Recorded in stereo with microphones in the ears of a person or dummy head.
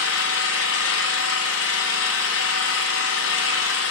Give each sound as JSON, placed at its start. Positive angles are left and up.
{"t": 0.0, "sound": "an engine running", "side_deg": 75, "distance_m": 1.2}